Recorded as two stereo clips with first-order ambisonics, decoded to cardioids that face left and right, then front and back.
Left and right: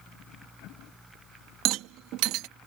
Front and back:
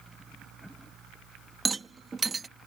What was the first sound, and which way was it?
A rattle, 105° right.